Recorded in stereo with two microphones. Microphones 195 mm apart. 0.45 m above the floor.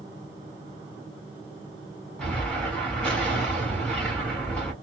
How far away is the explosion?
About 1.7 m.